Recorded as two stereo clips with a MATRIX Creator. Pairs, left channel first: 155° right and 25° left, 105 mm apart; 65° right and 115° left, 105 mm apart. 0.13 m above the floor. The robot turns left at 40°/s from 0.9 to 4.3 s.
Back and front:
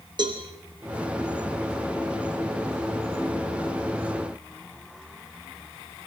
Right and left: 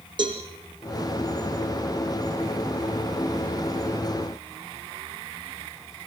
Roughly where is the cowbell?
Left.